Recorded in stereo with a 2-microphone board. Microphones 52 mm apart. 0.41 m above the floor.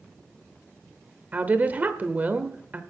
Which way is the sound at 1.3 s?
35° right (ahead or behind).